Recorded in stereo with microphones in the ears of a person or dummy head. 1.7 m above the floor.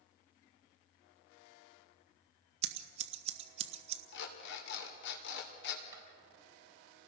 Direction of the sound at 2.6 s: 45° right (ahead or behind).